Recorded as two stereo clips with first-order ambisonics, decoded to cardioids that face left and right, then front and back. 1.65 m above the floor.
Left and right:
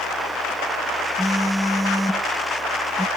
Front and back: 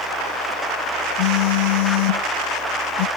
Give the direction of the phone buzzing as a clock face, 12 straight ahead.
12 o'clock.